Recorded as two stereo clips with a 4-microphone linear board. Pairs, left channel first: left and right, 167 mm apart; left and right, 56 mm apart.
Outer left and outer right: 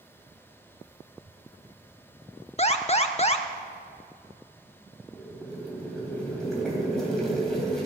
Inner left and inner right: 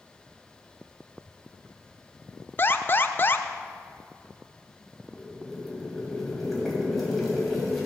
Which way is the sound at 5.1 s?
Centre (ahead or behind).